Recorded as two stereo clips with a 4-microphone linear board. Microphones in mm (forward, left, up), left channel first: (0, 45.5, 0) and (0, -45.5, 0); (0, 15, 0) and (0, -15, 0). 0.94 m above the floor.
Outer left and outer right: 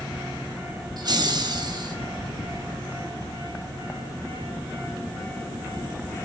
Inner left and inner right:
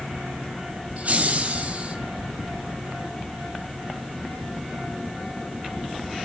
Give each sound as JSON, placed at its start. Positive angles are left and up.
{"t": 1.0, "sound": "laughter", "side_deg": -50, "distance_m": 1.5}